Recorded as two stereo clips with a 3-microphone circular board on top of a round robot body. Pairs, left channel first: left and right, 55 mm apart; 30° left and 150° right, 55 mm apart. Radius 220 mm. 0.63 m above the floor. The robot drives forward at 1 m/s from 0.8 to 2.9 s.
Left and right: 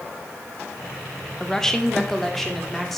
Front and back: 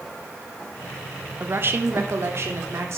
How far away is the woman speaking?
About 1.1 m.